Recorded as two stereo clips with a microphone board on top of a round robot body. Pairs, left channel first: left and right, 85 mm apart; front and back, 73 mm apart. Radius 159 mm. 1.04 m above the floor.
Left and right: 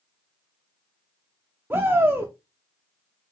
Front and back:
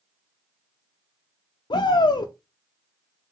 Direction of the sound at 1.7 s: 20° right.